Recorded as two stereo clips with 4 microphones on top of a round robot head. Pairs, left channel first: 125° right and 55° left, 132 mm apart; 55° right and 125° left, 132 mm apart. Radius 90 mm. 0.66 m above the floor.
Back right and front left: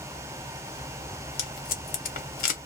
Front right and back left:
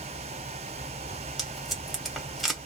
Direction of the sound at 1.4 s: 145° right.